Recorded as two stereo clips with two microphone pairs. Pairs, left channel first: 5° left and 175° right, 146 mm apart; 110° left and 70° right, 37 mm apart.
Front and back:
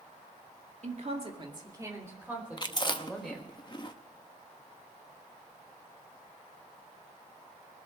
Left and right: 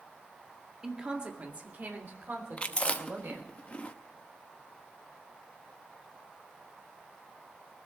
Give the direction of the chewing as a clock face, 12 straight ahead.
10 o'clock.